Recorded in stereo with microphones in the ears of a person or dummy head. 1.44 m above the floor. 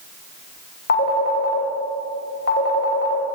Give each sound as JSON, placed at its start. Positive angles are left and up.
{"t": 0.9, "sound": "a phone ringing", "side_deg": 55, "distance_m": 1.2}